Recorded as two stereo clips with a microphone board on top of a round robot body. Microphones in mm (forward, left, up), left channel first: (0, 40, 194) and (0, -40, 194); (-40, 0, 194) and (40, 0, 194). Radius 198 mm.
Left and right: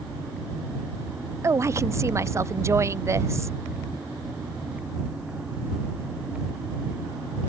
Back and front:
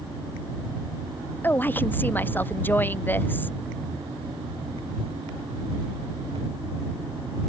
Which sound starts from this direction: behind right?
A woman speaking, at 1.4 s.